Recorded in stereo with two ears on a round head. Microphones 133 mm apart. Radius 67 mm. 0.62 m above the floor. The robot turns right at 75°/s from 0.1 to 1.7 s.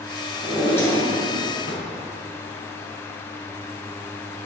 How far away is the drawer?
About 2.5 m.